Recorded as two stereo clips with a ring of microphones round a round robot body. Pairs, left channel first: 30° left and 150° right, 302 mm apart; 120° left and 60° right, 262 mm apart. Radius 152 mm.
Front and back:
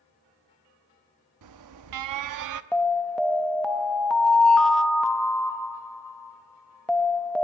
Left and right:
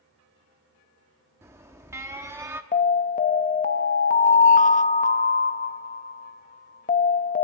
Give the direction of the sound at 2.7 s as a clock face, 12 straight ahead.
8 o'clock.